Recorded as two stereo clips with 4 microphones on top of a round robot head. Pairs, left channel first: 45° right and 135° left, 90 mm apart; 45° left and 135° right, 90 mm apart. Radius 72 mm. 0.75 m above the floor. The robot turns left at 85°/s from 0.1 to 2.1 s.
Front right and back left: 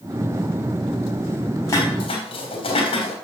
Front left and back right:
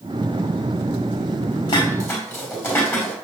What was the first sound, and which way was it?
Dishes clattering, 15° left.